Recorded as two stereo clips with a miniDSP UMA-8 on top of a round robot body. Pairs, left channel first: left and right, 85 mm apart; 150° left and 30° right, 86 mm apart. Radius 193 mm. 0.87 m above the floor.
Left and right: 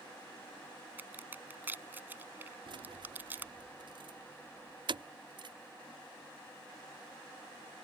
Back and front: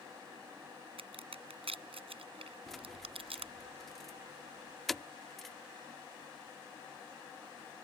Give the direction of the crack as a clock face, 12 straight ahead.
1 o'clock.